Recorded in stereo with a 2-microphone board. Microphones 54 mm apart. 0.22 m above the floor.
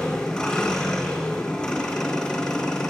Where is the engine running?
10° left (ahead or behind), 4.5 m.